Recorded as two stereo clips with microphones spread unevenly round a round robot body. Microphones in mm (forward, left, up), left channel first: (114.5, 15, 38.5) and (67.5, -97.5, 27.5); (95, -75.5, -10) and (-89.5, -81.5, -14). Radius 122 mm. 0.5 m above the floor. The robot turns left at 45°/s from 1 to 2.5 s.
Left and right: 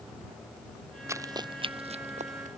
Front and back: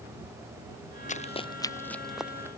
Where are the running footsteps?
45° right; by 2.5 s 100° right.